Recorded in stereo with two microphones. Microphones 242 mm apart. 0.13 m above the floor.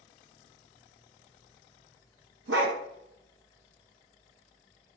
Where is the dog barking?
60° right (ahead or behind), 0.5 m.